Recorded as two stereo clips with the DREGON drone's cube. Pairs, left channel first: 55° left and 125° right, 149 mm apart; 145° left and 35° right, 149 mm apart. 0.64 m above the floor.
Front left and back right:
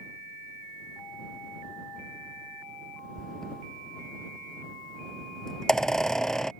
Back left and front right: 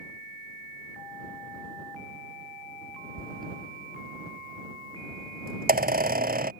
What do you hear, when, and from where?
3.2 s a squeak: 30° right